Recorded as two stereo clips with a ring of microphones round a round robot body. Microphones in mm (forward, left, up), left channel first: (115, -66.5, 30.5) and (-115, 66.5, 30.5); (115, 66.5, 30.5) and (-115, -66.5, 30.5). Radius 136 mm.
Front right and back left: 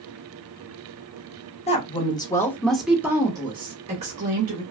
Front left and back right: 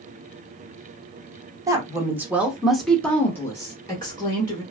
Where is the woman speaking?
80° right, 1.0 m; by 4.6 s 100° left, 1.2 m.